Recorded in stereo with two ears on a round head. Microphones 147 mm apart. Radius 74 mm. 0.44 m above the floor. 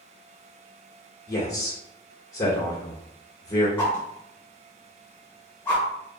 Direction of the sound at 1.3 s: 20° left (ahead or behind).